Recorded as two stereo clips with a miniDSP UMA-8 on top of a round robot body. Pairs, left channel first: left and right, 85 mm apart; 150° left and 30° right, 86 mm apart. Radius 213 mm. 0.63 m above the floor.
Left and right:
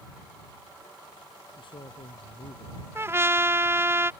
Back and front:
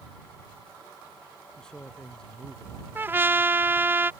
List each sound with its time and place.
1.6 s a man speaking: 65° left
3.0 s a trumpet: 70° right